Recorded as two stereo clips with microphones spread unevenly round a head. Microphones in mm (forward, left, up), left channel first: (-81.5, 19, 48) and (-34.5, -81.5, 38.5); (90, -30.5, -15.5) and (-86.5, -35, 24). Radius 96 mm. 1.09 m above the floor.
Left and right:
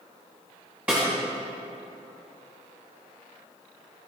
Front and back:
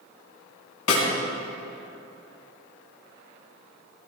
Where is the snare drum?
20° left, 3 m.